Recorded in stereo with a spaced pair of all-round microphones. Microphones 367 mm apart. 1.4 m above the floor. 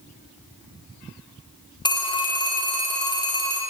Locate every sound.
1.9 s a phone ringing: 10° left (ahead or behind), 0.7 m